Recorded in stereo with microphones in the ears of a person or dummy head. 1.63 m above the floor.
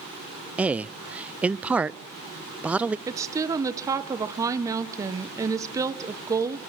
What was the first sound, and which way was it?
A man speaking, 10° right (ahead or behind).